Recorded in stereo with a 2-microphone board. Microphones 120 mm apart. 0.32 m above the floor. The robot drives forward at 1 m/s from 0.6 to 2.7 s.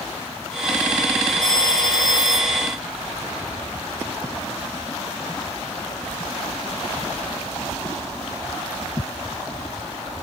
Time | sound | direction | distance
1.4 | a phone ringing | 30° right (ahead or behind) | ?